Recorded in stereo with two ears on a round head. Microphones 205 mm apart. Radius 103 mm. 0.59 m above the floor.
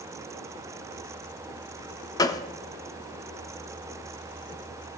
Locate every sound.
2.2 s a gunshot: 15° left (ahead or behind), 0.7 m